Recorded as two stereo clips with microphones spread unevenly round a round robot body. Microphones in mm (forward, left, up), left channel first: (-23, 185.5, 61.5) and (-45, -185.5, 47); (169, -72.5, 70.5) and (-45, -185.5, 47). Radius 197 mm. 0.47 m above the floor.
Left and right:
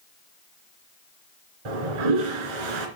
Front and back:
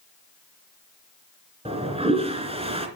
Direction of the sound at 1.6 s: 85° right.